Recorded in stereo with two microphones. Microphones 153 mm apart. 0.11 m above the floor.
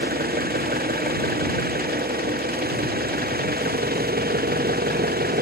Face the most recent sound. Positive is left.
turn(degrees=-90)